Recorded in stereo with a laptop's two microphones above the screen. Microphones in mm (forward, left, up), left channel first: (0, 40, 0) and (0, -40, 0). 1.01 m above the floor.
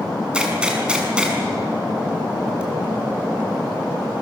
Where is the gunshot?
10° right (ahead or behind), 7 m.